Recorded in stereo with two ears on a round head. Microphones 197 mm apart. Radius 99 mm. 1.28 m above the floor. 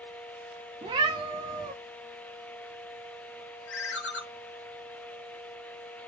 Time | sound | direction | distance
0.8 | a cat meowing | 20° right (ahead or behind) | 0.7 m
3.7 | a ringtone | 60° left (ahead or behind) | 0.9 m